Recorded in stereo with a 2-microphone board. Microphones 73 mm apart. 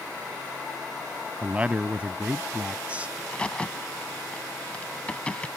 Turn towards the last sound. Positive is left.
turn(degrees=15)  # may be behind; listen again after turning